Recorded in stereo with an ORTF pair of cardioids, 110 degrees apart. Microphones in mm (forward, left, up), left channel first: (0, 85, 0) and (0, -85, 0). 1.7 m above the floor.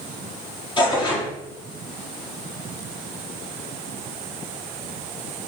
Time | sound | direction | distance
0.8 | tearing paper | 30° left | 4.5 m